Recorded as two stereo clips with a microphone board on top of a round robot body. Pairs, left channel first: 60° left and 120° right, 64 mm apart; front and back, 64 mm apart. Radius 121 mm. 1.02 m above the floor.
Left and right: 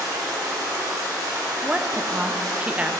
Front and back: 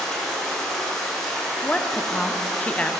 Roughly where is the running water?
Right.